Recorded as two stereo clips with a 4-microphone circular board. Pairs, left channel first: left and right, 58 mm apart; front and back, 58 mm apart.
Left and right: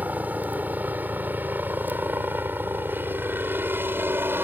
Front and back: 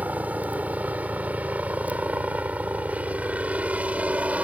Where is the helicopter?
135° right; by 4.4 s 125° right.